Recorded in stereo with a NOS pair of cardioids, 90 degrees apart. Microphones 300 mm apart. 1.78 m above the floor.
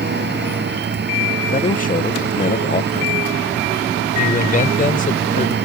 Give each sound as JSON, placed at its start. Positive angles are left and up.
{"t": 0.0, "sound": "a machine running", "azimuth_deg": -35}
{"t": 1.5, "sound": "a man speaking", "azimuth_deg": 25}
{"t": 4.2, "sound": "a man speaking", "azimuth_deg": 25}